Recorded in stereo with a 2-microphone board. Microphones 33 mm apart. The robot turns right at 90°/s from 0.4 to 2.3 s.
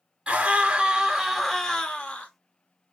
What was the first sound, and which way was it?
A scream, 25° right (ahead or behind).